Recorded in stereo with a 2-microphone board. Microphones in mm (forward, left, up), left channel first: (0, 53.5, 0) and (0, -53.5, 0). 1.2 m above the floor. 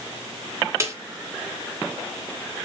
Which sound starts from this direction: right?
A snare drum, at 0.8 s.